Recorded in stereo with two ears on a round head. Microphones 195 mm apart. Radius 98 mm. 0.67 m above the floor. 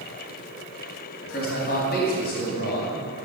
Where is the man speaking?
45° left (ahead or behind), 4 m.